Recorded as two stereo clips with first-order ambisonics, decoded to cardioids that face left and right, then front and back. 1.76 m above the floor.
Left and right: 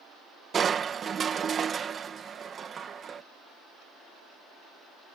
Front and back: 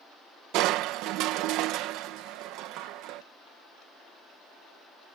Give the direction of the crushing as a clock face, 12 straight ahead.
5 o'clock.